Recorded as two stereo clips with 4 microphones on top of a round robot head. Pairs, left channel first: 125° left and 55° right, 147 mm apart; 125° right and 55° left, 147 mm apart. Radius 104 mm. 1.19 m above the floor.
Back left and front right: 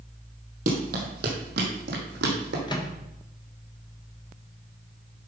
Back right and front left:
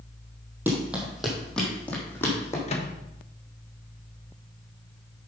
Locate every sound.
0.7 s running footsteps: 25° right, 2 m; by 2.6 s 55° right, 3 m
2.7 s a microwave: 170° right, 1.2 m